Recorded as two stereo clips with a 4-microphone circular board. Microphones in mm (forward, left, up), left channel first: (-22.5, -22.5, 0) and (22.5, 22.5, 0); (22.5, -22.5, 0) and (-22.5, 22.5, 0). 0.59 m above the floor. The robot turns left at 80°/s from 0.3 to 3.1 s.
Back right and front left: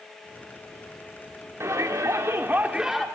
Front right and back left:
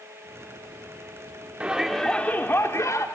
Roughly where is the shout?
Left.